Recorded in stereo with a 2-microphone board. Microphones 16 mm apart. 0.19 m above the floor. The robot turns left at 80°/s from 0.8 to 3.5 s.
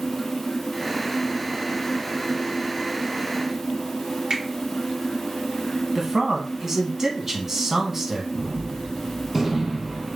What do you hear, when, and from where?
4.3 s a finger snap: 55° right (ahead or behind), 2.5 m
6.0 s a man speaking: 30° right (ahead or behind), 1.2 m
8.3 s a gunshot: 20° right (ahead or behind), 1.3 m